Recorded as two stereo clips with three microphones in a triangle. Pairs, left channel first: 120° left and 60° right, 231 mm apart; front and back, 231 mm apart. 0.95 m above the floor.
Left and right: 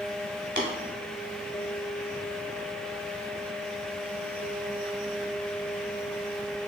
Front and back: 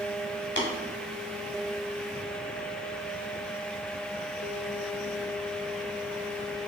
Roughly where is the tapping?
Ahead right.